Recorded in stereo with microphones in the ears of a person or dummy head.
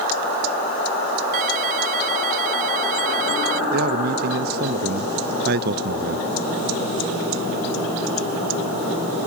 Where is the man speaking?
50° right (ahead or behind).